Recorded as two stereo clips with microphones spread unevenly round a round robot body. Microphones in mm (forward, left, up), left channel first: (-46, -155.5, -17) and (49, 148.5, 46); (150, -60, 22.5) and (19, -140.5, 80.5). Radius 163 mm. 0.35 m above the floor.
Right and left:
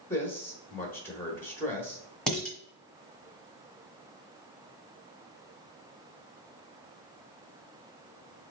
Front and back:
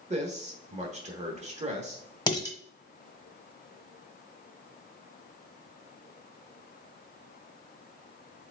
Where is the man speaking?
135° right, 1.1 m.